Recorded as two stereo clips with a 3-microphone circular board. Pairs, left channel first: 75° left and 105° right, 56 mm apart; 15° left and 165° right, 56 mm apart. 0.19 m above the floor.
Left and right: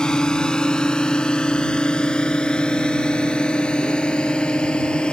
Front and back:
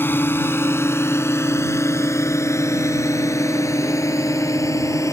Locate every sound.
0.0 s a drone: 10° left; by 5.1 s 5° left